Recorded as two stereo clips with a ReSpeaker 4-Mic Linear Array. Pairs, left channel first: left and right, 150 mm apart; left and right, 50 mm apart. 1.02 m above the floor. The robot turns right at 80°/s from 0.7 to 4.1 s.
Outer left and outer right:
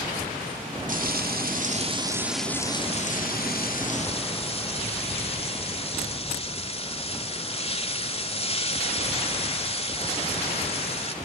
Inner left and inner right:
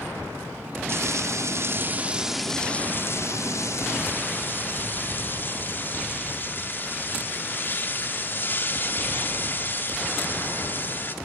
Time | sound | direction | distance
0.9 | frying | 120° right | 2.5 m